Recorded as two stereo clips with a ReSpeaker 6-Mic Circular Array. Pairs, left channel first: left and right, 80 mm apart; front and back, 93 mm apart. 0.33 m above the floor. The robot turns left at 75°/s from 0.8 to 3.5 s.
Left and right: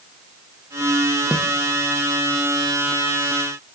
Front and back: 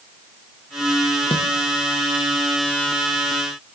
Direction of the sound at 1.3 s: 10° right.